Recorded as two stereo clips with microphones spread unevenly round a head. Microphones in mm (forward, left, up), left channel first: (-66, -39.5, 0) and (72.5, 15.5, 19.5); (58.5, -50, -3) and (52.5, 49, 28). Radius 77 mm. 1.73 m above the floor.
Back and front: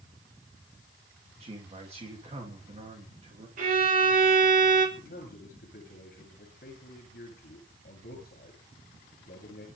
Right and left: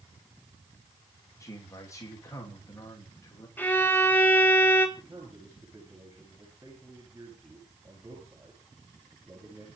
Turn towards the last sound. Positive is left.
turn(degrees=165)